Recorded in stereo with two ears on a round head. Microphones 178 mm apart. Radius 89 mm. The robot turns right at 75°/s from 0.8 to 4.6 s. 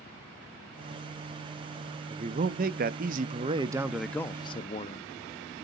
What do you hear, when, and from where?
2.1 s a man speaking: 145° right, 0.6 m; by 5.1 s 45° left, 0.6 m